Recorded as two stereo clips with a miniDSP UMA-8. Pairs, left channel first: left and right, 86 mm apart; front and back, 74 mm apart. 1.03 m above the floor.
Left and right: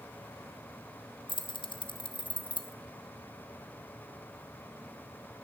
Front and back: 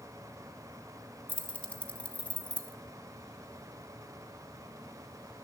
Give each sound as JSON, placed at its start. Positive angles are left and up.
{"t": 1.3, "sound": "keys jangling", "azimuth_deg": 75, "distance_m": 0.8}